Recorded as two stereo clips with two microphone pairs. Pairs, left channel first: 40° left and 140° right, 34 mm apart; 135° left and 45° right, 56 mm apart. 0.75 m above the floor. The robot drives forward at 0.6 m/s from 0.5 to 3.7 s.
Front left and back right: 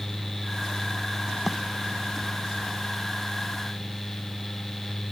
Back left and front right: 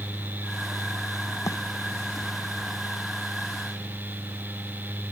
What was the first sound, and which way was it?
A bird, 135° left.